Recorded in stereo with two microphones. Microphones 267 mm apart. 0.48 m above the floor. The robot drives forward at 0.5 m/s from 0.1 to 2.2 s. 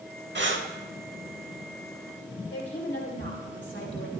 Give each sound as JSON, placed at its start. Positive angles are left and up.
{"t": 0.3, "sound": "breathing", "side_deg": -45, "distance_m": 0.8}
{"t": 2.5, "sound": "a woman speaking", "side_deg": 45, "distance_m": 2.0}